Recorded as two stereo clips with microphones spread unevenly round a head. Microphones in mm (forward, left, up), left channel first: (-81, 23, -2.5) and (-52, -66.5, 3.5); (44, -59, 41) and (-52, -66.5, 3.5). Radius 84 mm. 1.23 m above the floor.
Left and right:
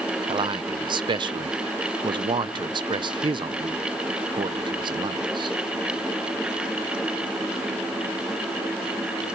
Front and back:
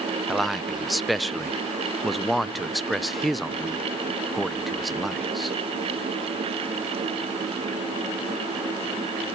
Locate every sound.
0.3 s a man speaking: 100° right, 0.7 m